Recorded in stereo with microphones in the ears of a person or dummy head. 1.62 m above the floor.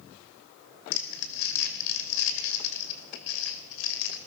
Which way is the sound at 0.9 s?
60° left (ahead or behind).